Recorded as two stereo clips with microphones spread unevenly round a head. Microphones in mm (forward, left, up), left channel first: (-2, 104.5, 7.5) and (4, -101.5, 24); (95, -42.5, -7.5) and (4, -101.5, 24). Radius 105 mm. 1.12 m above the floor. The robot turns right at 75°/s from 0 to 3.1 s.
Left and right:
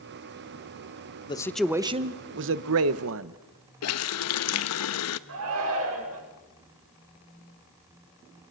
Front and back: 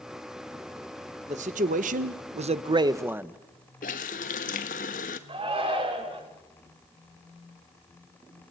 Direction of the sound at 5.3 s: 110° right.